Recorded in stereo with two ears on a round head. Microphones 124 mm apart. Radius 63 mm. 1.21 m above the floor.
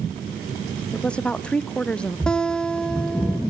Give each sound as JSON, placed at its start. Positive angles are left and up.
{"t": 0.9, "sound": "a woman speaking", "side_deg": 5, "distance_m": 0.6}
{"t": 2.3, "sound": "a guitar", "side_deg": 5, "distance_m": 0.9}